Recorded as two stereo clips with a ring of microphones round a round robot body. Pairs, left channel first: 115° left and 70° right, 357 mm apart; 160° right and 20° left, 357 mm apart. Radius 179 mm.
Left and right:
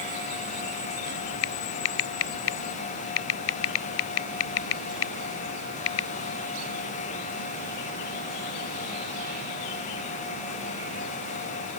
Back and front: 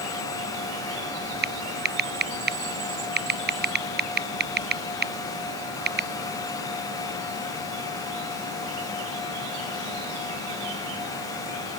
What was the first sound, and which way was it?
Typing on a keyboard, 85° left.